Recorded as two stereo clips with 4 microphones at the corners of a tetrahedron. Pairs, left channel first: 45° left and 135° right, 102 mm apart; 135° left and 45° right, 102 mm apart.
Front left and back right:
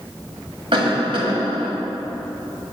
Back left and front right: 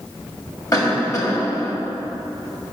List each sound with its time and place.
0.7 s a cough: 170° right, 1.6 m